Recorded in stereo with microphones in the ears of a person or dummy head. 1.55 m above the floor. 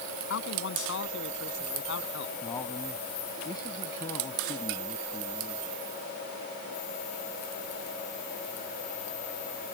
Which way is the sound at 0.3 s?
70° left (ahead or behind).